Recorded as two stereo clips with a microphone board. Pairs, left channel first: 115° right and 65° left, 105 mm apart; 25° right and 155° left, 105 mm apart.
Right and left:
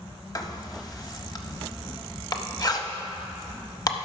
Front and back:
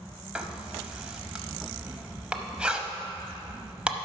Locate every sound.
0.3 s writing: 130° right, 0.8 m